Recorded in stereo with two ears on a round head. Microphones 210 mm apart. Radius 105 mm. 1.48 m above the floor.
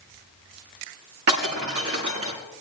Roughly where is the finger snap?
I don't hear a finger snap.